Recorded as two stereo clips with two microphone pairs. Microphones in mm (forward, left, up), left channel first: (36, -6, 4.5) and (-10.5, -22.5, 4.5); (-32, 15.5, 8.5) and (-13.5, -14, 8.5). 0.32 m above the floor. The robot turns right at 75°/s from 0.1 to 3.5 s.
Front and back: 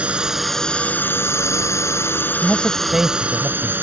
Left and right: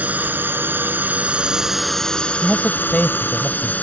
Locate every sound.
0.0 s a drone: 95° right; by 3.8 s 150° left
2.4 s a man speaking: 75° left; by 3.7 s 155° left